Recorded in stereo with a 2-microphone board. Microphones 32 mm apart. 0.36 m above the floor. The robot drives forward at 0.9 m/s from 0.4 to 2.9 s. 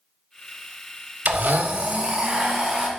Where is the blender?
65° right (ahead or behind), 0.7 m; by 2.9 s 25° right (ahead or behind), 1.6 m.